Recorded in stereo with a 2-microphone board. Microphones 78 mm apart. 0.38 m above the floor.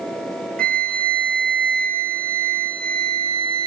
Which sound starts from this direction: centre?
A flute, at 0.6 s.